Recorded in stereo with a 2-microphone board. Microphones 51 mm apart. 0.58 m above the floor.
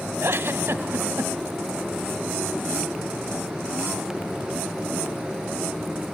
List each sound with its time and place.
0.2 s a giggle: 50° right (ahead or behind), 0.6 m